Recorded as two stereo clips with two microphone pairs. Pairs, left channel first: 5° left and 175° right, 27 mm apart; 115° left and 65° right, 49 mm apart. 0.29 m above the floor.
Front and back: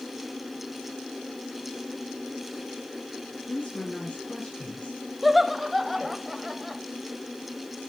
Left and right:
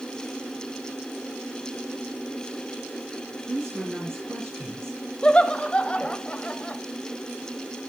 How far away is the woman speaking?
About 3.5 m.